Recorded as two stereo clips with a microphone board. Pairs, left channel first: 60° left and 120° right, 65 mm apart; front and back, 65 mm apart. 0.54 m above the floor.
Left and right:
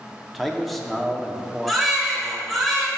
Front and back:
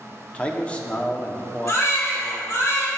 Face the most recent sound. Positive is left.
turn(degrees=-30)